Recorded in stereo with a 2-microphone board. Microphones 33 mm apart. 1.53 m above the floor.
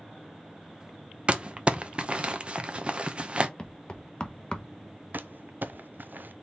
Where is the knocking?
25° left (ahead or behind), 0.8 m.